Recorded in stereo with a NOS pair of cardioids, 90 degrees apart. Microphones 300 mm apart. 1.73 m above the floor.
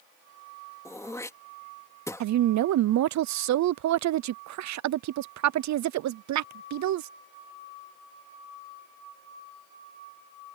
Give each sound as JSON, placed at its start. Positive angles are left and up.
{"t": 0.8, "sound": "throat clearing", "azimuth_deg": 10}
{"t": 2.2, "sound": "a woman speaking", "azimuth_deg": -60}